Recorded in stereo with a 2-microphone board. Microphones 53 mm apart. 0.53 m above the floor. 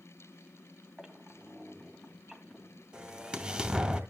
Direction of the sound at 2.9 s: 20° right (ahead or behind).